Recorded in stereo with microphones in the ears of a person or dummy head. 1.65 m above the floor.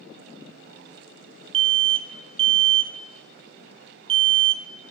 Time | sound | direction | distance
1.5 | an alarm | 25° right (ahead or behind) | 0.6 m